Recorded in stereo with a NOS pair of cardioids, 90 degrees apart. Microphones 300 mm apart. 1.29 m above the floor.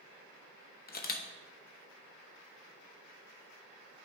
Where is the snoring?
No snoring in this recording.